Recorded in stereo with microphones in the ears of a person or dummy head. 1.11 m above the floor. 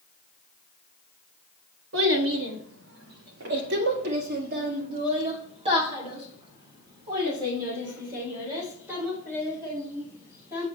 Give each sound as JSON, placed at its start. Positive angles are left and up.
{"t": 1.9, "sound": "a child speaking", "side_deg": -85, "distance_m": 1.7}